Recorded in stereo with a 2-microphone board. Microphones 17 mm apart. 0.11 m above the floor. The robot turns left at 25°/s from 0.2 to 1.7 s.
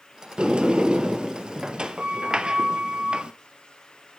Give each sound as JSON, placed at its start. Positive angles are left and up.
{"t": 0.4, "sound": "a sliding door", "azimuth_deg": -75, "distance_m": 1.1}